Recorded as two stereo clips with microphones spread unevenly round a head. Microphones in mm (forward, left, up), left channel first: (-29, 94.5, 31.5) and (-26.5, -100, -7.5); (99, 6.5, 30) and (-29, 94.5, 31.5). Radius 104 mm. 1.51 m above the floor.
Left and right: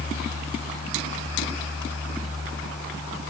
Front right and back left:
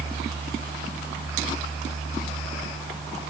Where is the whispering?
No whispering in this recording.